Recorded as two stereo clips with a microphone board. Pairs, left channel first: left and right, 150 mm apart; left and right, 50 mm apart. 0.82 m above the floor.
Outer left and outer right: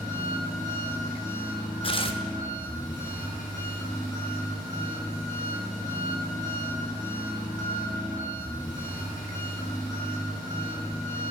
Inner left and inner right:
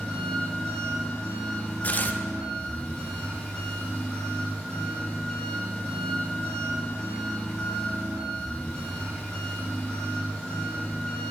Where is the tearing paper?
35° left (ahead or behind), 0.6 m.